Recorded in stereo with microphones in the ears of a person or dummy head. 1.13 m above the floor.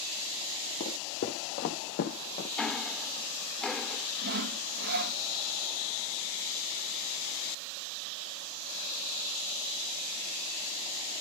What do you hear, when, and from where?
0.8 s footsteps: 35° left (ahead or behind), 2.0 m; by 2.5 s 40° left (ahead or behind), 2.5 m
2.6 s ticking: 5° left (ahead or behind), 0.7 m
4.2 s sawing: 55° right (ahead or behind), 0.9 m